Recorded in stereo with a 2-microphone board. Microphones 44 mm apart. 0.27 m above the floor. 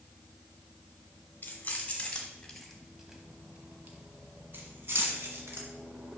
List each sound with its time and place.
1.4 s keys jangling: 40° left (ahead or behind), 1.3 m; by 5.7 s 65° right (ahead or behind), 1.8 m